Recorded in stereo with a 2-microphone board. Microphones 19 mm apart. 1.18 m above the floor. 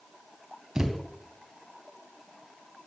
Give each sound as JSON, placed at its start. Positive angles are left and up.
{"t": 0.8, "sound": "a thud", "side_deg": -35, "distance_m": 3.0}